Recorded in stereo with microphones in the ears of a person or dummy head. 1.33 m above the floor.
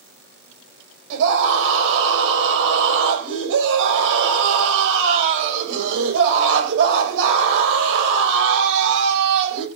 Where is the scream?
75° right (ahead or behind), 6.5 m.